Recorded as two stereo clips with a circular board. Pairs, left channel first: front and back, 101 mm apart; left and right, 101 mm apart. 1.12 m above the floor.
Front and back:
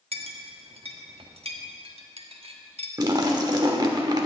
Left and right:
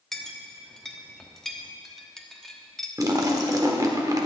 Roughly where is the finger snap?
I don't hear a finger snap.